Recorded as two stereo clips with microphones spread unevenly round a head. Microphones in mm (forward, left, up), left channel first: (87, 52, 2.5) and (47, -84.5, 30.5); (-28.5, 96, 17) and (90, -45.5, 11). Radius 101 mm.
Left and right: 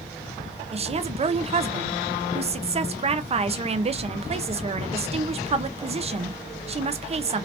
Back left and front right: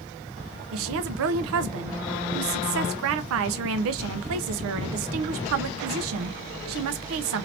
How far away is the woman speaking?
About 0.6 m.